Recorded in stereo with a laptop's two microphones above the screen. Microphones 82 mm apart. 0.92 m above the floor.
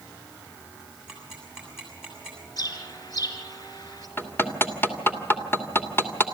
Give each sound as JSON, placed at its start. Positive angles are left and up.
{"t": 1.1, "sound": "ticking", "side_deg": -5, "distance_m": 7.0}
{"t": 2.6, "sound": "a bird", "side_deg": 50, "distance_m": 4.0}
{"t": 4.2, "sound": "hammering", "side_deg": 25, "distance_m": 2.5}